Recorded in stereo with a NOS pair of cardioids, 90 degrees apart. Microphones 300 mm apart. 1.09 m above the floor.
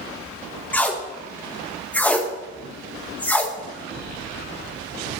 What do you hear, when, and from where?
0.7 s tape being pulled: 5° left, 0.9 m